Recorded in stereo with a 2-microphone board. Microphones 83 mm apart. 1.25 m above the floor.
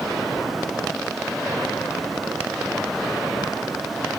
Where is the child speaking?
I don't hear a child speaking.